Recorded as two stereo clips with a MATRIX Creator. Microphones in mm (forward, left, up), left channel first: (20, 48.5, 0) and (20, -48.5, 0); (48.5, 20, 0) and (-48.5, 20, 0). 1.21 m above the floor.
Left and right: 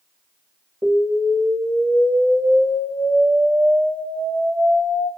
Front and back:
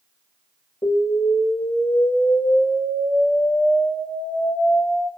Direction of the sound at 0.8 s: 25° right.